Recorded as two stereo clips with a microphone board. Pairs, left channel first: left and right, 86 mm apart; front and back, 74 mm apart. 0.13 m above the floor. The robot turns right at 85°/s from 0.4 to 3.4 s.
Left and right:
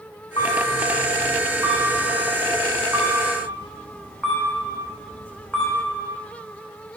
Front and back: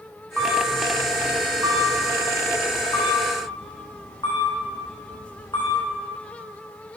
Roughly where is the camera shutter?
Behind left.